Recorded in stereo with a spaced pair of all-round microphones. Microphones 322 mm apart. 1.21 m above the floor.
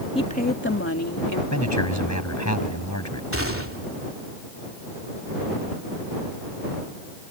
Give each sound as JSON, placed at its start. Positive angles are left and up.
{"t": 0.1, "sound": "a woman speaking", "side_deg": 15}
{"t": 1.5, "sound": "a man speaking", "side_deg": 55}
{"t": 3.3, "sound": "a gunshot", "side_deg": -40}